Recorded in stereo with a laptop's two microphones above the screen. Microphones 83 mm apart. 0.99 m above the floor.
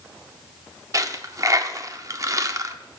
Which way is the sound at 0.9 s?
40° right (ahead or behind).